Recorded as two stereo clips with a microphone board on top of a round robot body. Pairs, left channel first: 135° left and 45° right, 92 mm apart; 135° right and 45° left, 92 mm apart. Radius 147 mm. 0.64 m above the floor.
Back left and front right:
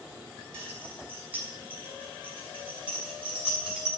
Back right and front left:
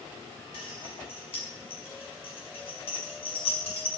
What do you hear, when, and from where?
0.5 s keys jangling: 110° right, 6 m; by 3.9 s 125° right, 6 m